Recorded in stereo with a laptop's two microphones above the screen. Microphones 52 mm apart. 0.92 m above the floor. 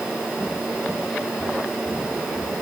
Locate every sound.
Only background noise.